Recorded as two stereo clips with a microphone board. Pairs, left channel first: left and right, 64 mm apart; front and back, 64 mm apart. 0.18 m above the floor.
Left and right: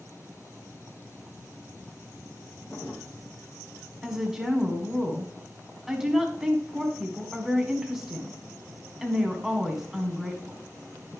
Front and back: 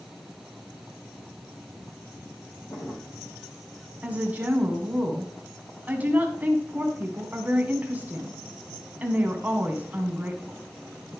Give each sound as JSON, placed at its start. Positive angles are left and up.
{"t": 2.7, "sound": "a drawer", "azimuth_deg": 30, "distance_m": 2.5}
{"t": 4.0, "sound": "a woman speaking", "azimuth_deg": -165, "distance_m": 1.6}